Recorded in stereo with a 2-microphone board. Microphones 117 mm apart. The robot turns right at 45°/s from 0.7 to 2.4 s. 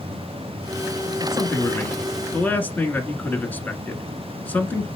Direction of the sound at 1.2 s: 20° left (ahead or behind).